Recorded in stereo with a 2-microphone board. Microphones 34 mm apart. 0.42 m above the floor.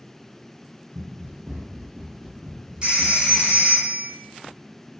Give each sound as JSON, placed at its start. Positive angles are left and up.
{"t": 0.9, "sound": "running footsteps", "side_deg": -65, "distance_m": 1.2}
{"t": 2.8, "sound": "a phone ringing", "side_deg": -30, "distance_m": 1.1}